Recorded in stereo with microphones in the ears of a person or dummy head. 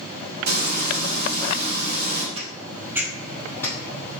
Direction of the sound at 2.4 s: 35° right (ahead or behind).